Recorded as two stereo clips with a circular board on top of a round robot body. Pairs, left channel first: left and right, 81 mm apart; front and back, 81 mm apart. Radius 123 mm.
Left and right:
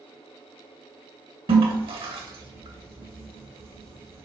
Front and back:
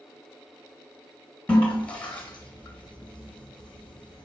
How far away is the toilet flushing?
About 1.9 m.